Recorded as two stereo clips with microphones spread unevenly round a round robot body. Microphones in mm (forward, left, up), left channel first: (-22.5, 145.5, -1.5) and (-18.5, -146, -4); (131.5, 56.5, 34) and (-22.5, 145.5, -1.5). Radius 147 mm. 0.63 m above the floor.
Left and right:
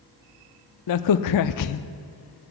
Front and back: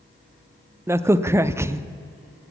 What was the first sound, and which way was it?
A crack, 80° left.